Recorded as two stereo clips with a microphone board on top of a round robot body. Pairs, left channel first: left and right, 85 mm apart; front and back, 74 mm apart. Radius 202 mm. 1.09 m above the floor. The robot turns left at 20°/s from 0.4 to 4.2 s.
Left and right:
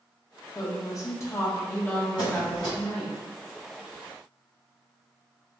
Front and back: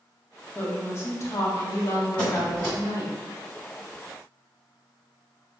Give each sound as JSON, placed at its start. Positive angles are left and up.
{"t": 0.6, "sound": "a woman speaking", "azimuth_deg": 55, "distance_m": 1.0}
{"t": 2.2, "sound": "a squeak", "azimuth_deg": -70, "distance_m": 1.2}